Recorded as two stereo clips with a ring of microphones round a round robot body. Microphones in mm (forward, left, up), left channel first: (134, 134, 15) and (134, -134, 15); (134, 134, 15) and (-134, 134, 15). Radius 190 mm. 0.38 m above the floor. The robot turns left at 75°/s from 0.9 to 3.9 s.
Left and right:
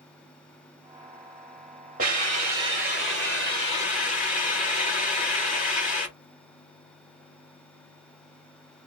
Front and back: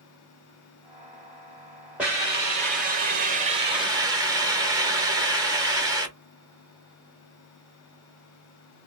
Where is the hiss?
100° right, 1.1 m; by 6.1 s 120° left, 1.1 m.